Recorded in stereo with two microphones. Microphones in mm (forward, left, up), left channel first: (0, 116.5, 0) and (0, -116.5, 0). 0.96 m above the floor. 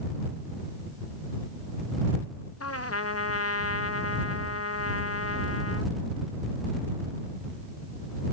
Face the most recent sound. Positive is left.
turn(degrees=80)